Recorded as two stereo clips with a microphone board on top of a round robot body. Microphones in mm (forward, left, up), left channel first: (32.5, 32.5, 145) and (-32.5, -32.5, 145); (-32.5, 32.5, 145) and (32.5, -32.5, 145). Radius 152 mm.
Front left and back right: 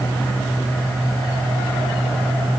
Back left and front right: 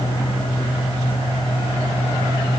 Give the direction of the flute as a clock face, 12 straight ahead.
I don't hear a flute.